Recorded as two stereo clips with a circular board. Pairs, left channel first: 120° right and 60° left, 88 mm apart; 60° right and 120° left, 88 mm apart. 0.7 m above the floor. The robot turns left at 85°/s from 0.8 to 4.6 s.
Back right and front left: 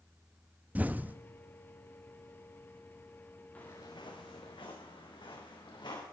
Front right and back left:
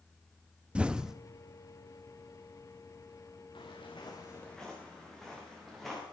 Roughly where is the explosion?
Left.